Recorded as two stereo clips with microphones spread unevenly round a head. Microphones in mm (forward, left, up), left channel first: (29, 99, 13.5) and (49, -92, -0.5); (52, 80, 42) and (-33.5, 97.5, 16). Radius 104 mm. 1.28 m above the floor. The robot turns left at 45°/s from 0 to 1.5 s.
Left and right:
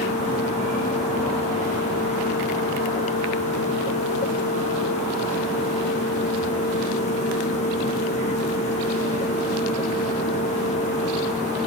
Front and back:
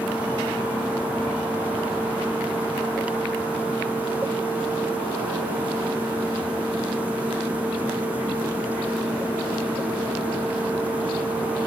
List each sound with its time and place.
Only background noise.